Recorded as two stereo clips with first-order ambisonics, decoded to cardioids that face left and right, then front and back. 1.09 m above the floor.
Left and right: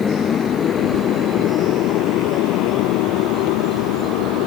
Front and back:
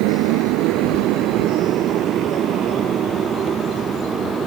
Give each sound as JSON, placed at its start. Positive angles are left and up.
{"t": 0.0, "sound": "a motorcycle", "azimuth_deg": 160}